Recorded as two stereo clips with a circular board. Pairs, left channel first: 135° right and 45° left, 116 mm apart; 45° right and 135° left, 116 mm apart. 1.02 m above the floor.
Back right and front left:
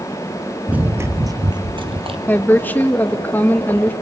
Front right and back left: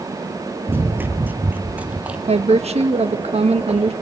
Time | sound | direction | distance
0.7 | running footsteps | 105° left | 1.0 m
2.3 | a woman speaking | 150° left | 1.2 m